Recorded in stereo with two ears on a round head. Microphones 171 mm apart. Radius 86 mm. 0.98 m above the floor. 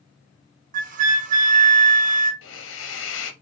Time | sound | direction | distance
0.7 | a flute | 40° right (ahead or behind) | 0.6 m
2.4 | a hiss | 70° left (ahead or behind) | 0.6 m